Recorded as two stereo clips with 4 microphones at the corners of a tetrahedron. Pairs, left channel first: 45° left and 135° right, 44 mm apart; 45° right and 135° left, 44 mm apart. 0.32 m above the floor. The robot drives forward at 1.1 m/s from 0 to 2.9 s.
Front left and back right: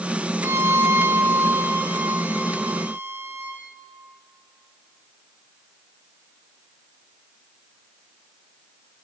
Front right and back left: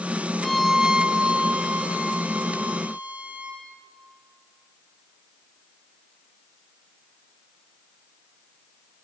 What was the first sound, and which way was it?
A violin, 125° right.